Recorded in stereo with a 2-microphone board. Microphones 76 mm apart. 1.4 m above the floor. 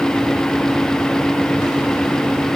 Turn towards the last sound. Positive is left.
No sound to turn to.